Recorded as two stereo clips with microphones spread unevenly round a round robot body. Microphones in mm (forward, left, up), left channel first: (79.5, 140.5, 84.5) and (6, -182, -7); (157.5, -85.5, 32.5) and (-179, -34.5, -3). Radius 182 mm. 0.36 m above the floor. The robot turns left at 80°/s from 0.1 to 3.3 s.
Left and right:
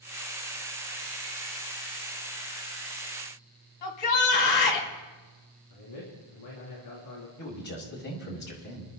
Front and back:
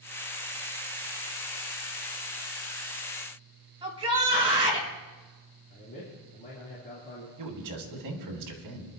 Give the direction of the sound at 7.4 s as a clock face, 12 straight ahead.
7 o'clock.